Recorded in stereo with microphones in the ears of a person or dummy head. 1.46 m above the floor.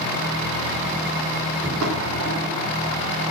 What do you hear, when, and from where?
1.6 s footsteps: 70° right (ahead or behind), 7 m; by 3.3 s 65° right (ahead or behind), 7 m